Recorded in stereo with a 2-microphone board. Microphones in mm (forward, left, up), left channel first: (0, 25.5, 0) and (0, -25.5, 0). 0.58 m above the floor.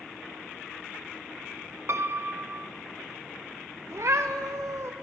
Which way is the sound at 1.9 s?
55° right (ahead or behind).